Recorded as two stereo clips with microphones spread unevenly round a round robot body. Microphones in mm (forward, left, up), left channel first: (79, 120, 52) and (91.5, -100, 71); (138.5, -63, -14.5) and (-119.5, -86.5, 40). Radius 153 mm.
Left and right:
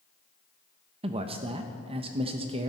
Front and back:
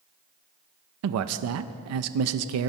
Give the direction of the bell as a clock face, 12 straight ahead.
No bell in this recording.